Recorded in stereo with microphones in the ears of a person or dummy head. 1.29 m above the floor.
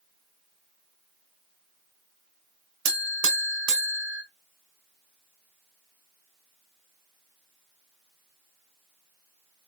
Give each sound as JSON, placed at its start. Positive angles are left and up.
{"t": 2.9, "sound": "a buzzer", "side_deg": -75, "distance_m": 1.0}